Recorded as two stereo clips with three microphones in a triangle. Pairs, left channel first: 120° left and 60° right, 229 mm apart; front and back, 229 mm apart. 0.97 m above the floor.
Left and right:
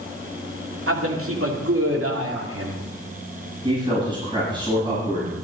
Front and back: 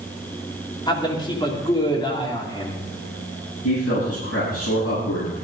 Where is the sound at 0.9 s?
70° right, 2.5 m.